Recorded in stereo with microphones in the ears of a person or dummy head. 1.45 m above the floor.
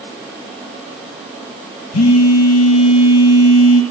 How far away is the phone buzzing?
About 1.9 m.